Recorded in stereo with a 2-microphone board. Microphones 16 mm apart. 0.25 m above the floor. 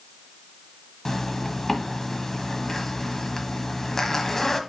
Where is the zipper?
25° left (ahead or behind), 1.2 m.